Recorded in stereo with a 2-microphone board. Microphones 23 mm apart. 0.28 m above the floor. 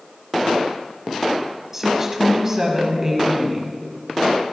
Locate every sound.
1.7 s a woman speaking: 20° right (ahead or behind), 1.5 m